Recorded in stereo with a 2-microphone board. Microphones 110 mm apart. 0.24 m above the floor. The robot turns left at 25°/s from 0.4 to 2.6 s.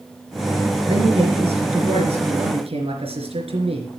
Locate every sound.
0.9 s a man speaking: 65° right, 3.5 m; by 3.9 s 110° right, 3.5 m